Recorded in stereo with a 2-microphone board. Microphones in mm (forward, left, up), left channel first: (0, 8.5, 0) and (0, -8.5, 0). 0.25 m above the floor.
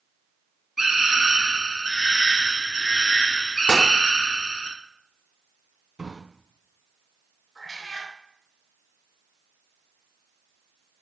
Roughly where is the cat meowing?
Left.